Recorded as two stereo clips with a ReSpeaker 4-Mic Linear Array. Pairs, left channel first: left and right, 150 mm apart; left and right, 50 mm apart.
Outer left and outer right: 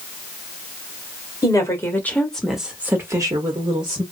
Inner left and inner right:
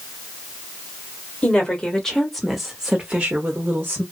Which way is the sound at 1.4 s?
20° left (ahead or behind).